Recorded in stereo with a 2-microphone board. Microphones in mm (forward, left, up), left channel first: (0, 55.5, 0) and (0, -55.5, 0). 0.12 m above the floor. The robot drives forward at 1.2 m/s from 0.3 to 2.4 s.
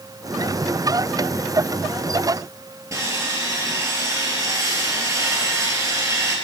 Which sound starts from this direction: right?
Sawing, at 2.9 s.